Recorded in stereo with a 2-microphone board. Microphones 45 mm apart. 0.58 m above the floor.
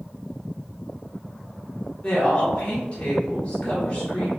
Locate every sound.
2.0 s a woman speaking: 30° left (ahead or behind), 1.5 m